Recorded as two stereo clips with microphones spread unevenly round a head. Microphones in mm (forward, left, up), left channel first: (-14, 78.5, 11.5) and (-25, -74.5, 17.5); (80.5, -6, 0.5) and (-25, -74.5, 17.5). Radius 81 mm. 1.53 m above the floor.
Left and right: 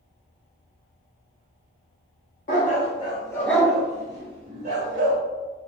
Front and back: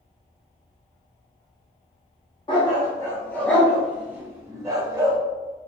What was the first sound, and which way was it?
A dog barking, 85° left.